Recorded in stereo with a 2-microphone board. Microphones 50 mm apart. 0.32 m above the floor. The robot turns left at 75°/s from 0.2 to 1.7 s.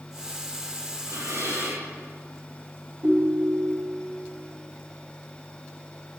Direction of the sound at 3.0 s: 40° right (ahead or behind).